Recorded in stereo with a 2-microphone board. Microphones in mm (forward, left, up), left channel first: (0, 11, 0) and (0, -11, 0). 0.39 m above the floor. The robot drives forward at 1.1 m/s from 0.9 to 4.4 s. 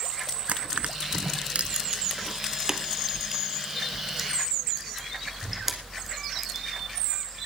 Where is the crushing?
65° right (ahead or behind), 0.8 m; by 6.7 s 10° right (ahead or behind), 3.5 m.